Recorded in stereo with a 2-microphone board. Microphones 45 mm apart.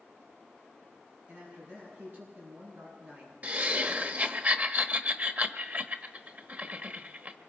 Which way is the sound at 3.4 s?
35° right (ahead or behind).